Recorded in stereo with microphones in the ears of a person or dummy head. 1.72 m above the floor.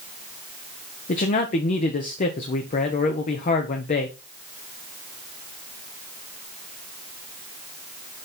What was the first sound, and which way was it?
A man speaking, 40° left (ahead or behind).